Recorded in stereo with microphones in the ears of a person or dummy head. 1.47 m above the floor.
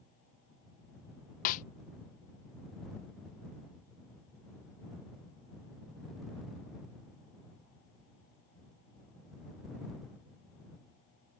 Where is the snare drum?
45° left (ahead or behind).